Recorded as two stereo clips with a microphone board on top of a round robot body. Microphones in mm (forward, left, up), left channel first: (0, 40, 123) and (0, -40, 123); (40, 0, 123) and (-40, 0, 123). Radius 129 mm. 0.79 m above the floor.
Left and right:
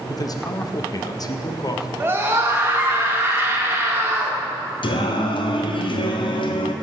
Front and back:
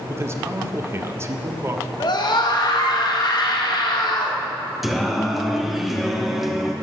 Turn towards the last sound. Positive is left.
turn(degrees=90)